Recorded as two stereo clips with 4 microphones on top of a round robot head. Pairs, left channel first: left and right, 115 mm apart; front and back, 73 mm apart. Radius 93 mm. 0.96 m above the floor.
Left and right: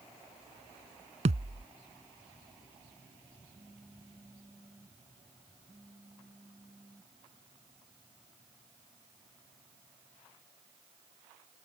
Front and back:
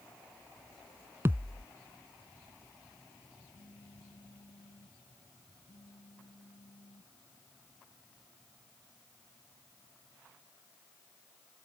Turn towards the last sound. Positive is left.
turn(degrees=-10)